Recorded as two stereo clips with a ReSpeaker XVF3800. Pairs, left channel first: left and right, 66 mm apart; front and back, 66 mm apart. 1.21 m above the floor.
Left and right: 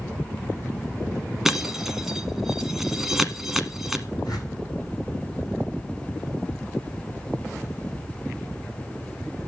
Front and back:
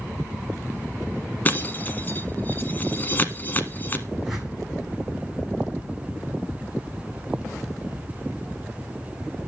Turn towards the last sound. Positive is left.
turn(degrees=100)